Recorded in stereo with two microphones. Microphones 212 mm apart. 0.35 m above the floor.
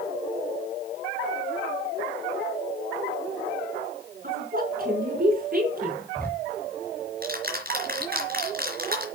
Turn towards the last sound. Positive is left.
turn(degrees=-45)  # may be behind; listen again after turning